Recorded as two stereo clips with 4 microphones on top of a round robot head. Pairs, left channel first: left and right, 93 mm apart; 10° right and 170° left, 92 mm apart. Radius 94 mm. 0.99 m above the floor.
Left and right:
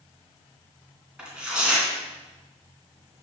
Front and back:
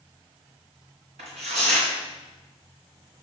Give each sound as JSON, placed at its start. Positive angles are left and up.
{"t": 1.2, "sound": "tearing paper", "azimuth_deg": -170, "distance_m": 2.5}